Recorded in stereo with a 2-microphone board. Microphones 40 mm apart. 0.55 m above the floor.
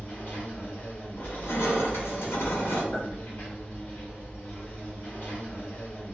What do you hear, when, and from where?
0.0 s an insect: 50° left (ahead or behind), 0.9 m
1.2 s crushing: 80° left, 0.8 m
2.9 s a clink: 65° left (ahead or behind), 1.5 m